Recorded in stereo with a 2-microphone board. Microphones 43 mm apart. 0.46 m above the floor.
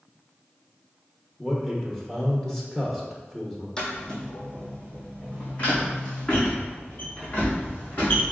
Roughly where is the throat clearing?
No throat clearing in this recording.